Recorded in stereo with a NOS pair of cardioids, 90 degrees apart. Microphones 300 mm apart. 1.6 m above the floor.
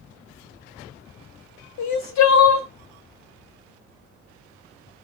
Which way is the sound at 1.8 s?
70° left.